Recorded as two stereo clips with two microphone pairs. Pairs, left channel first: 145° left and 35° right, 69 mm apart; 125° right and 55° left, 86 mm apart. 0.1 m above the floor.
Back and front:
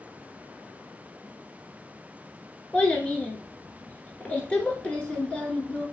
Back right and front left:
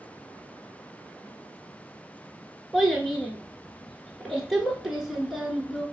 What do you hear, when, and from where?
2.7 s a child speaking: 130° left, 0.8 m